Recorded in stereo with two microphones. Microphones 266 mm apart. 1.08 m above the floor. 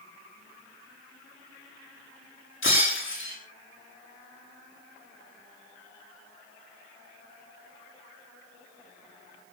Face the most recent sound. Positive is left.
turn(degrees=50)  # may be behind; listen again after turning